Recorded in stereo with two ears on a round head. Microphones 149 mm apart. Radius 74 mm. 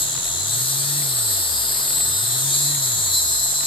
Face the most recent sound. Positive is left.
turn(degrees=30)  # may be behind; listen again after turning